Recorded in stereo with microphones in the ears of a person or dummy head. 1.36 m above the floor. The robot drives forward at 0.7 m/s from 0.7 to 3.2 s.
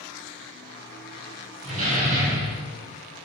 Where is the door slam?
40° right (ahead or behind), 3 m; by 2.7 s 50° right (ahead or behind), 2.5 m.